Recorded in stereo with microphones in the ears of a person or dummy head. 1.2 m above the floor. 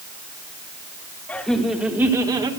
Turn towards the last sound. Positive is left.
turn(degrees=-25)  # may be behind; listen again after turning